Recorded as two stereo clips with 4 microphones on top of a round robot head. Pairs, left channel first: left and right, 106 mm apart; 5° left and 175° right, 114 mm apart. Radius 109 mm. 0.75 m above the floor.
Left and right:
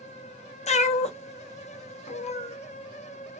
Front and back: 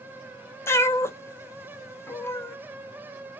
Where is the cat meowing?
75° left, 0.7 m.